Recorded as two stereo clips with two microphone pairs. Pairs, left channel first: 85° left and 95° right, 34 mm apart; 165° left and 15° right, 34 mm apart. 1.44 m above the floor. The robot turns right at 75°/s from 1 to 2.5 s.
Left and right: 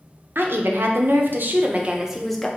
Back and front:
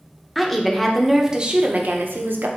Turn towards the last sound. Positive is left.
turn(degrees=10)